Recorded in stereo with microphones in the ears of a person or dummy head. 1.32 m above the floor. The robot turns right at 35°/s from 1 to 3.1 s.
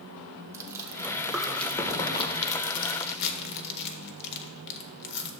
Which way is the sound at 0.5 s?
15° right (ahead or behind).